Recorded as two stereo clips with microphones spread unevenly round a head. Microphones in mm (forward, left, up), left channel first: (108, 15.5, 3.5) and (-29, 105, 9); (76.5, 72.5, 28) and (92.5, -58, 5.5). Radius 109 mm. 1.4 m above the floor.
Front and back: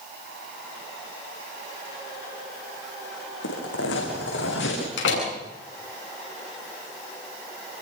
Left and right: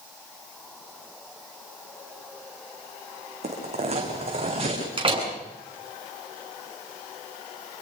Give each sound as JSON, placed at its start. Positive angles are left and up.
{"t": 3.4, "sound": "footsteps", "azimuth_deg": -45, "distance_m": 7.0}
{"t": 5.0, "sound": "a door slam", "azimuth_deg": -35, "distance_m": 9.5}